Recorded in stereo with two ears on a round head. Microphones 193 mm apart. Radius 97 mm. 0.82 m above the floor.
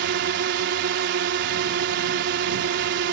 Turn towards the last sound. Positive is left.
turn(degrees=-55)  # may be behind; listen again after turning